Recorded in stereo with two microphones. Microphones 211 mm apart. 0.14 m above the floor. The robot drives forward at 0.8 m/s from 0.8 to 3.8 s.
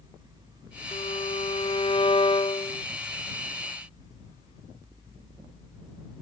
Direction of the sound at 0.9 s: 30° left (ahead or behind).